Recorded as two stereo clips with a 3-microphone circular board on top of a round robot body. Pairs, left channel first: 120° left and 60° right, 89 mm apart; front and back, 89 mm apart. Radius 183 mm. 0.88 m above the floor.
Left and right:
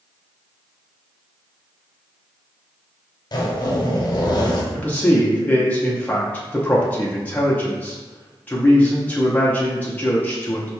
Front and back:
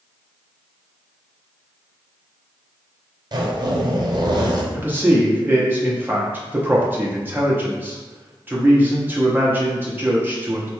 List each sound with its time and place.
3.3 s a zipper: 150° left, 0.8 m
4.7 s a man speaking: 160° left, 0.8 m